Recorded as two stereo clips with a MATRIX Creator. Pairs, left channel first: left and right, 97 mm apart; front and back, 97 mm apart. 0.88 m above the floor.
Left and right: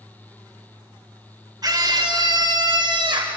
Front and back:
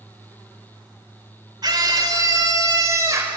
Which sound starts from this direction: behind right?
A scream, at 1.6 s.